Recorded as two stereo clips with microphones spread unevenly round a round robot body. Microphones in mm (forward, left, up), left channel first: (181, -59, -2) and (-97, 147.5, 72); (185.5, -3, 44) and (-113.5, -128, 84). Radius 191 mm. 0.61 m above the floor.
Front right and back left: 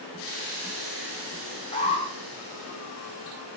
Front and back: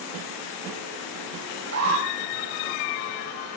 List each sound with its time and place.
1.7 s an alarm: 110° right, 4 m